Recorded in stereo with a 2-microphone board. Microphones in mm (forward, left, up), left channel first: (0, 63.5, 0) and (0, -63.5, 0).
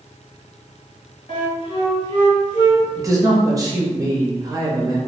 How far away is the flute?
About 1.8 m.